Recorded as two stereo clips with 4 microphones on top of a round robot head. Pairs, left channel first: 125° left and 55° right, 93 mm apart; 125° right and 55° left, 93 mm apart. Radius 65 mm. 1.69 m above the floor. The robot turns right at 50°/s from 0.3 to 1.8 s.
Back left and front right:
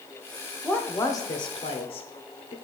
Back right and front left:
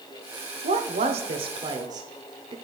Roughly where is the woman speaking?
Ahead left.